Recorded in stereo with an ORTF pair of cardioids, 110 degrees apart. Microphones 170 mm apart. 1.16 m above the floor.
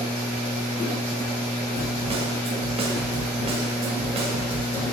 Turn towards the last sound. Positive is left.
turn(degrees=-35)